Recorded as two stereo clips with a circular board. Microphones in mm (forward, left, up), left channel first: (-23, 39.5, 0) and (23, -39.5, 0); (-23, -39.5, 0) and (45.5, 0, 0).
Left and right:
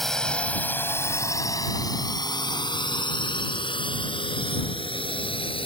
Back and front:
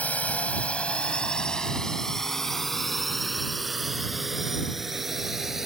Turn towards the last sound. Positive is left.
turn(degrees=115)